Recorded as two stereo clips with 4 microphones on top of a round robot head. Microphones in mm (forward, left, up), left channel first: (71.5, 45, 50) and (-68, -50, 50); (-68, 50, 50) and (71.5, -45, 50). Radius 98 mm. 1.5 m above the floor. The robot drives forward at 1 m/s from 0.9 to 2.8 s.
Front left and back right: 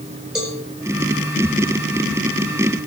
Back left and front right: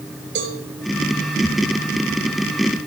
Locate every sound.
0.3 s a cowbell: 60° right, 4.5 m